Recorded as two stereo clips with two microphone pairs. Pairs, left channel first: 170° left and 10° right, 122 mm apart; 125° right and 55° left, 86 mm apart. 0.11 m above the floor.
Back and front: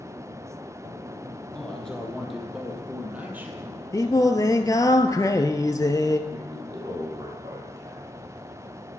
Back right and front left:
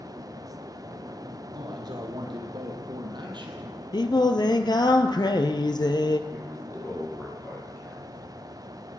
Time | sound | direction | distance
1.5 | a man speaking | 90° left | 3.5 m
3.9 | singing | 130° right | 1.0 m
6.3 | a man speaking | 65° right | 4 m